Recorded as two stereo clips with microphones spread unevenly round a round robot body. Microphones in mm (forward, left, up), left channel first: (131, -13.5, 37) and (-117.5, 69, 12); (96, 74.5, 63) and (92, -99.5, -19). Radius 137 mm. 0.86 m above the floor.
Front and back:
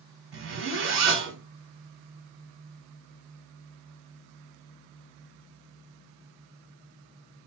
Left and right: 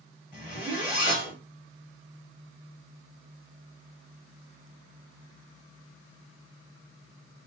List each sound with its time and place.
0.3 s a zipper: 120° left, 1.5 m